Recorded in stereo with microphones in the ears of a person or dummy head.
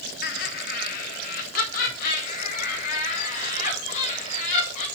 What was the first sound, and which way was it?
Laughter, 40° left (ahead or behind).